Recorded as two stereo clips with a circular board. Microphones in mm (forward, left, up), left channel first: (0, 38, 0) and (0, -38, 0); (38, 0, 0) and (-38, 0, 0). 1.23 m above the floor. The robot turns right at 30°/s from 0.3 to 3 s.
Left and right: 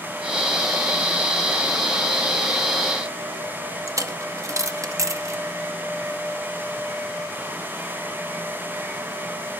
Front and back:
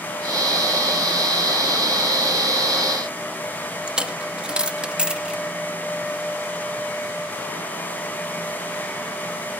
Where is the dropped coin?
105° right, 0.7 m.